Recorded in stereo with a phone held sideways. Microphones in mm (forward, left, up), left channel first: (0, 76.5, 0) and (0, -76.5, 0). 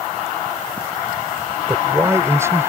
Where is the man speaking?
15° right (ahead or behind).